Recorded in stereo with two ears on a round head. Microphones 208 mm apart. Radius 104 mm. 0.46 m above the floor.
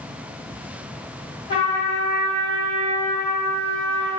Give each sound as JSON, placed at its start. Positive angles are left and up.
{"t": 1.5, "sound": "a trumpet", "side_deg": 20, "distance_m": 1.3}